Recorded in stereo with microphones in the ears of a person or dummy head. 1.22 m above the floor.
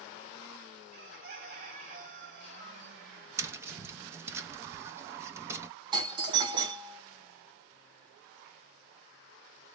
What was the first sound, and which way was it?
A bird, 50° right (ahead or behind).